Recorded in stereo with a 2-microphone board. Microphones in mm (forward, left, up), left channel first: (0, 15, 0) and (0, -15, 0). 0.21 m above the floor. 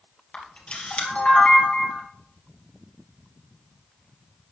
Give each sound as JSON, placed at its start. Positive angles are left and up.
{"t": 0.3, "sound": "a camera shutter", "side_deg": 45, "distance_m": 3.0}